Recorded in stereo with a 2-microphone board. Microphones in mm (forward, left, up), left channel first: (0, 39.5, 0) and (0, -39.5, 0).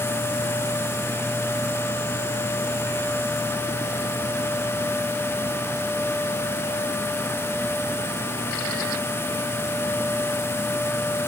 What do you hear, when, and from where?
Only background noise.